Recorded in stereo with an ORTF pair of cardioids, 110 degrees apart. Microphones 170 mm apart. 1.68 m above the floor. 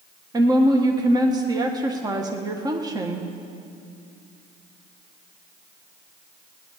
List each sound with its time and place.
0.3 s a woman speaking: 25° right, 1.4 m